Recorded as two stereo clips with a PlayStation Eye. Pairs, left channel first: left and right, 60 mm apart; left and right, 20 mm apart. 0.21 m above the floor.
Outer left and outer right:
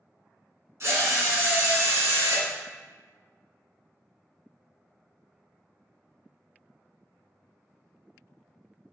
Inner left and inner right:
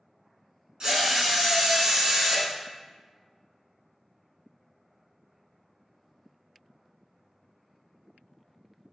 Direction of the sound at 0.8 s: 50° right (ahead or behind).